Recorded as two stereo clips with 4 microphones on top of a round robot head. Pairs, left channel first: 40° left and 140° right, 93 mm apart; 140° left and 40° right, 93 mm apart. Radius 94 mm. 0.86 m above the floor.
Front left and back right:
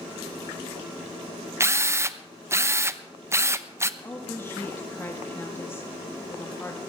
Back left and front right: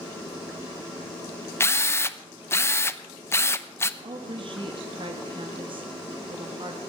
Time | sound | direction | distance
1.6 | a drill | straight behind | 0.9 m
4.0 | a woman speaking | 20° right | 1.5 m